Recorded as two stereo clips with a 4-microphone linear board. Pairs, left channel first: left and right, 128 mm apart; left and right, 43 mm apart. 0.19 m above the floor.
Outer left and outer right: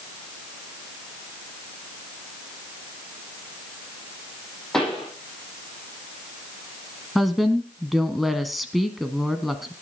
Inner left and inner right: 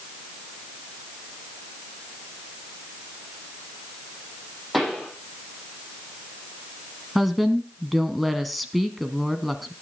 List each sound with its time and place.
4.7 s a pop: 5° left (ahead or behind), 8 m
7.2 s a woman speaking: centre (ahead or behind), 1.3 m